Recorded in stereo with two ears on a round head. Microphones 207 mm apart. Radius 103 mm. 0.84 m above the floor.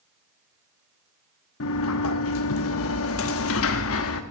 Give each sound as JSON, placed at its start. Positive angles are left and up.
{"t": 1.6, "sound": "a sliding door", "side_deg": 65, "distance_m": 1.0}